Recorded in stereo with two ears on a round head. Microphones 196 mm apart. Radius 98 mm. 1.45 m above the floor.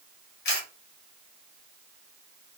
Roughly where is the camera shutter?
Left.